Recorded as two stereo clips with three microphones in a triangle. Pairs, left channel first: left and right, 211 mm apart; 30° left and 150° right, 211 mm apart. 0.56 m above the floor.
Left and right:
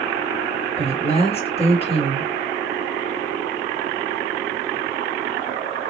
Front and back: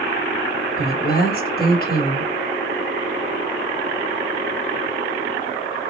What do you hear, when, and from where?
0.8 s a woman speaking: 40° left, 1.3 m